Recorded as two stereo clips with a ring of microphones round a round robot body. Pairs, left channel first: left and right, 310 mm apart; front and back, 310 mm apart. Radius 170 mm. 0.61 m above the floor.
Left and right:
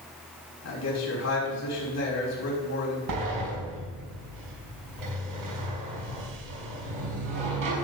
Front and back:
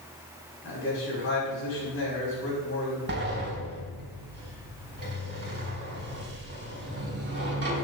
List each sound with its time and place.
0.6 s a man speaking: 55° left, 5.5 m
3.1 s a sliding door: 125° right, 4.5 m